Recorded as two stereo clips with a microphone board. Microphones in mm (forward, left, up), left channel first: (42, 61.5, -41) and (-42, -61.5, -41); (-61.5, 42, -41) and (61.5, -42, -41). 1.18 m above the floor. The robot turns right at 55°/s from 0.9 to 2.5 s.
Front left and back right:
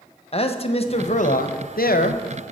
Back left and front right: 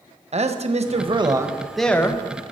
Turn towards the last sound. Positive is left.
turn(degrees=95)